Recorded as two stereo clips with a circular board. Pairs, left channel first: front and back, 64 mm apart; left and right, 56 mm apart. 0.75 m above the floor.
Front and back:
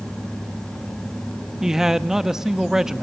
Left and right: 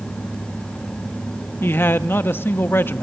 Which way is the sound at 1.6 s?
105° left.